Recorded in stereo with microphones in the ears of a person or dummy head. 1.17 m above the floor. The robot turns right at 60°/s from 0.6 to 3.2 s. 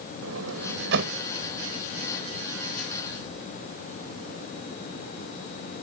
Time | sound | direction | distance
0.2 | a sliding door | 85° right | ?